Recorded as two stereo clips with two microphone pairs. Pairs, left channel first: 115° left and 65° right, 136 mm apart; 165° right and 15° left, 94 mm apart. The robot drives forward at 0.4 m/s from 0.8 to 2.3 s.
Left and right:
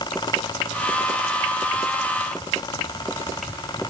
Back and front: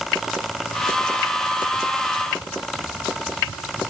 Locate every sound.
Only background noise.